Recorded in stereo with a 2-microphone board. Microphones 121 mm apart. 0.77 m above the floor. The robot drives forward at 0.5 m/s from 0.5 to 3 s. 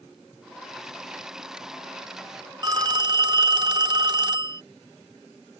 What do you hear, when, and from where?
2.6 s a phone ringing: 35° right (ahead or behind)